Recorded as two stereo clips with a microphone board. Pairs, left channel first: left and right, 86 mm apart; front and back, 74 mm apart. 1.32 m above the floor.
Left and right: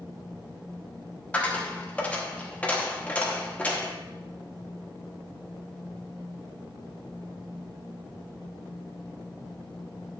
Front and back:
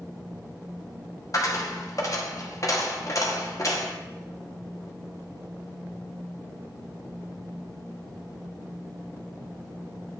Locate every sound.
1.3 s a dropped coin: 20° left, 1.0 m